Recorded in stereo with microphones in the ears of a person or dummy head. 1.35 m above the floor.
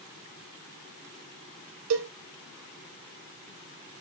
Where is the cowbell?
80° right, 0.5 m.